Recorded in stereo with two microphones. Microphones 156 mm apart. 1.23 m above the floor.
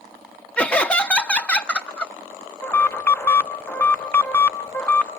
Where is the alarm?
15° left (ahead or behind), 0.5 m.